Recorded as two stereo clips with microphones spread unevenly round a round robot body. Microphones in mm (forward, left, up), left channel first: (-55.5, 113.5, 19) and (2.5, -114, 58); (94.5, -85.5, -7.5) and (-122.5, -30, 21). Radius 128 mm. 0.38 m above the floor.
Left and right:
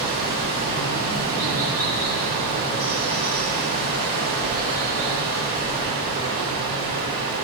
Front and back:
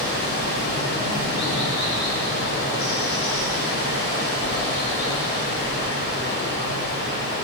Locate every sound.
0.0 s running water: 25° right, 1.3 m